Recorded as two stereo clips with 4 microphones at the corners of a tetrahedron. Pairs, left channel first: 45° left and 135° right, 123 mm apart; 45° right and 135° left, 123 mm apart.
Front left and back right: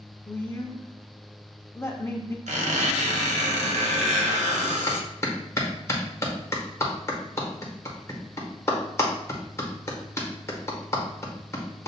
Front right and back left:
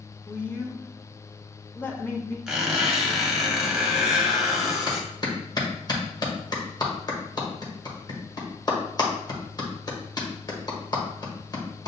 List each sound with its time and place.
0.3 s a woman speaking: 5° left, 0.8 m
2.5 s a squeak: 140° right, 1.0 m
4.9 s a clap: 10° right, 1.1 m